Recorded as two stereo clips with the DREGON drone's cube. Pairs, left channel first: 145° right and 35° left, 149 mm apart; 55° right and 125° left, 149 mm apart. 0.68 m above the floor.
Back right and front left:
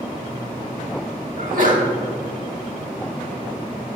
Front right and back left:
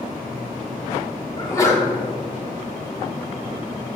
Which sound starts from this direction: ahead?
A sneeze, at 1.4 s.